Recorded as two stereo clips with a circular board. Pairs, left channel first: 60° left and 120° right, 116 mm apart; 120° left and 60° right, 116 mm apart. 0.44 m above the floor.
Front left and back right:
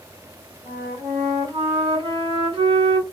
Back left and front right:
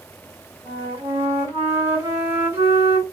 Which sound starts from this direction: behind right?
A flute, at 0.7 s.